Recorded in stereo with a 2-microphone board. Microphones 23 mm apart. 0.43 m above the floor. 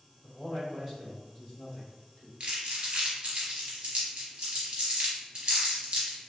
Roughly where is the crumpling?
Right.